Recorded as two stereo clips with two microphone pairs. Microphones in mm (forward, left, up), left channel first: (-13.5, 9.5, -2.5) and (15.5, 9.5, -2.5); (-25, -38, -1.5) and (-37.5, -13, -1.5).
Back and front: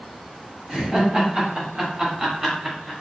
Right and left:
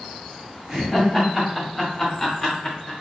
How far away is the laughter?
About 1.7 m.